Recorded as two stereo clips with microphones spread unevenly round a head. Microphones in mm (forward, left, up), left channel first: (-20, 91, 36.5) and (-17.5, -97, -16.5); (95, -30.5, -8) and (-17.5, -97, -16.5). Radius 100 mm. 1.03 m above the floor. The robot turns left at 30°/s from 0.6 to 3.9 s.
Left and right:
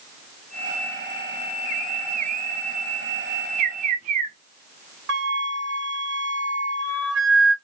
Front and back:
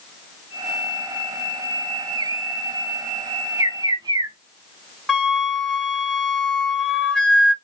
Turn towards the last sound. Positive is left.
turn(degrees=-50)